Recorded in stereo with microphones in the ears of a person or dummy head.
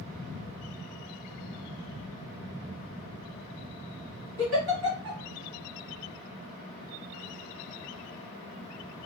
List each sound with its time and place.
4.4 s a giggle: 55° right (ahead or behind), 1.7 m